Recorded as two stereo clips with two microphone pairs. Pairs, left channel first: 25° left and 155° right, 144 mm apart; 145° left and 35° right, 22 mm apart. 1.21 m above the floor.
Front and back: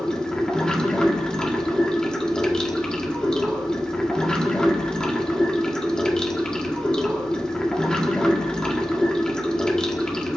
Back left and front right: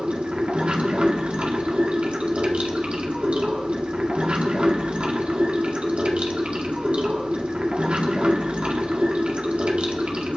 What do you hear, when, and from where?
0.0 s running water: 55° right, 1.6 m